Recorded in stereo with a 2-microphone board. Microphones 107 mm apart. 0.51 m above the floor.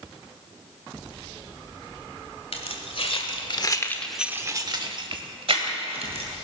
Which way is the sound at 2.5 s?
70° left (ahead or behind).